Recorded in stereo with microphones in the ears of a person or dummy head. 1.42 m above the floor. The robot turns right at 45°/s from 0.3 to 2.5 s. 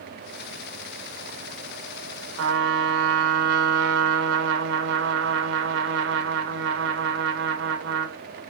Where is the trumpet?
75° right (ahead or behind), 1.0 m.